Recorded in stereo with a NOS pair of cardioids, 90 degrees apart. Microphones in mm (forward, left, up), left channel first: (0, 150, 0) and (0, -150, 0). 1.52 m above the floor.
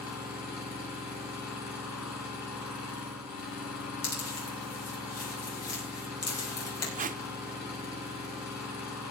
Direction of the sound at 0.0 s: 65° left.